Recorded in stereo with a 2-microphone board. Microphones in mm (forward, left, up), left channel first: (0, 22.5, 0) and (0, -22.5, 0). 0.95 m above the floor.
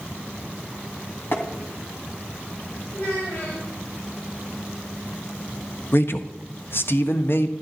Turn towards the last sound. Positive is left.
turn(degrees=55)  # may be behind; listen again after turning